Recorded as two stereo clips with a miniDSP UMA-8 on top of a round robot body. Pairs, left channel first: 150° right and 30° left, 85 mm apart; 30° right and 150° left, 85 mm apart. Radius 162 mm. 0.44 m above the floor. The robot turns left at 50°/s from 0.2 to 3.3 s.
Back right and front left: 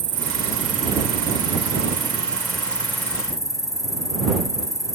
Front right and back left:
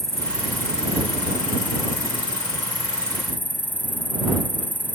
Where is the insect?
55° left; by 5.0 s 100° right.